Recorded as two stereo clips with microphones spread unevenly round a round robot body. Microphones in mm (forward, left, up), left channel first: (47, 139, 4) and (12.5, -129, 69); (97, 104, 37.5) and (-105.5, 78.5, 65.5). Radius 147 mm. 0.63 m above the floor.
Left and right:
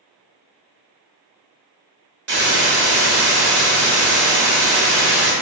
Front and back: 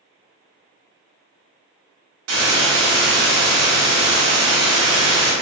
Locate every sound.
2.3 s a hiss: 160° right, 1.0 m